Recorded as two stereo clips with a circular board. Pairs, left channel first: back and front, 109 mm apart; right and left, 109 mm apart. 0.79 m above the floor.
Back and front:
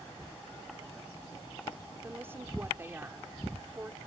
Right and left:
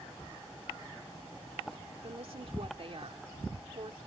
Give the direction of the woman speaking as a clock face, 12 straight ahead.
10 o'clock.